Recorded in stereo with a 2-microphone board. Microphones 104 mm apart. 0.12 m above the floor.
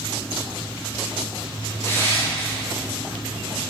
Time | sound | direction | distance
1.8 | crushing | 20° left (ahead or behind) | 5.5 m